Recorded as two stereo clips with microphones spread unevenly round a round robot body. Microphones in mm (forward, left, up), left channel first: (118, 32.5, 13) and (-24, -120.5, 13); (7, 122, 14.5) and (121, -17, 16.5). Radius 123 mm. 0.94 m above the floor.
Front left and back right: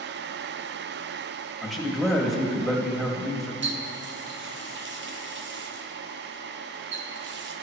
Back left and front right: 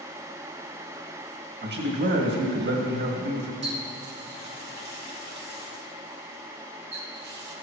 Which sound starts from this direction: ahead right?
A man speaking, at 1.6 s.